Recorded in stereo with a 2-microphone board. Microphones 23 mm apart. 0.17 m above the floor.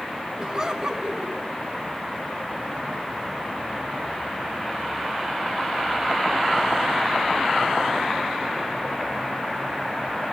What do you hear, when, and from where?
0.4 s laughter: 30° right (ahead or behind), 1.4 m